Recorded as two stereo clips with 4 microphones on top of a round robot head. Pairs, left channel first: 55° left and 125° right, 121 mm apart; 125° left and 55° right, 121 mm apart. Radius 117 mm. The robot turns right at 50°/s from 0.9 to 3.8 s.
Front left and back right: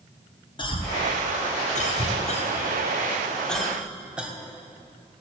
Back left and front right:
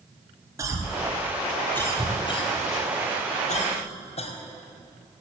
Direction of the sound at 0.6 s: 10° left.